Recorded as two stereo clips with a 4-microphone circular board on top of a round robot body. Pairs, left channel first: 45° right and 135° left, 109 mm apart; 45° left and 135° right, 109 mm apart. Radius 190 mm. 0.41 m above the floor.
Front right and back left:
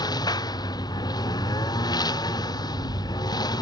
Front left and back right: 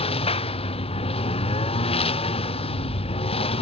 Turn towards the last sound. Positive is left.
turn(degrees=10)